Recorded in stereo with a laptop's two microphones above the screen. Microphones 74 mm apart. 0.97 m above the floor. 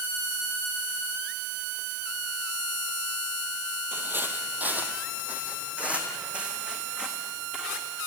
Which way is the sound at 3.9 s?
30° right (ahead or behind).